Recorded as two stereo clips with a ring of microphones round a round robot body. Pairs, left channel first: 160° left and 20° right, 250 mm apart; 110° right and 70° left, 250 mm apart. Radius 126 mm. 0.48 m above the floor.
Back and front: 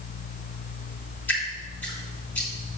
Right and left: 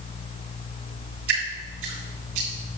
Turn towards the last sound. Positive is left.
turn(degrees=75)